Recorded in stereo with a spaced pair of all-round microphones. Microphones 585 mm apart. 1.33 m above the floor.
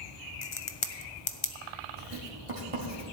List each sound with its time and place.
0.4 s a crack: 55° left (ahead or behind), 0.8 m
2.0 s writing: 65° right (ahead or behind), 2 m